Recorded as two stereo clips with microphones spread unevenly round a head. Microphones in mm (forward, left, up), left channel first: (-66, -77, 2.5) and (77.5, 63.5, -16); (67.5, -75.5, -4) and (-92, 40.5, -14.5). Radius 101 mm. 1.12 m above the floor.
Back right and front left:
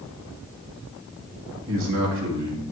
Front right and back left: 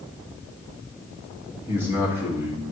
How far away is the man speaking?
About 1.9 m.